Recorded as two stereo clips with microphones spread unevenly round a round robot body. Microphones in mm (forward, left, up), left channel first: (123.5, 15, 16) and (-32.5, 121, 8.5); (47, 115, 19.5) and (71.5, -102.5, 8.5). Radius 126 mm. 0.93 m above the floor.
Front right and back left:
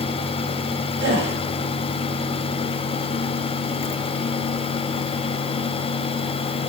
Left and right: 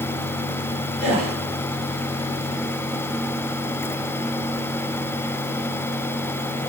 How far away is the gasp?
About 2.5 m.